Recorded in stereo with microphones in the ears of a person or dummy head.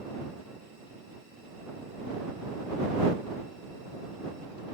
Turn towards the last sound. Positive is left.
No sound to turn to.